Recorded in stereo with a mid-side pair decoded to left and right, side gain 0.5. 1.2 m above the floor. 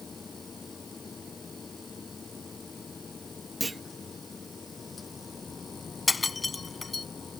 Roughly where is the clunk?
Ahead.